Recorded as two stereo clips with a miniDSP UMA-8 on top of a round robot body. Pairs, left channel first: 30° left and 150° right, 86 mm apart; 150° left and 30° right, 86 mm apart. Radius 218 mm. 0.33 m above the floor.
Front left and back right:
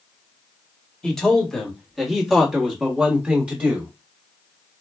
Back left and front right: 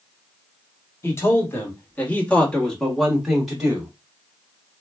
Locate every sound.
1.0 s a man speaking: 110° left, 1.8 m; by 3.9 s 95° right, 1.6 m